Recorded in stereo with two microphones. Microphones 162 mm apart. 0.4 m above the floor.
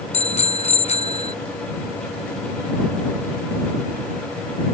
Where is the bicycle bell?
40° left (ahead or behind).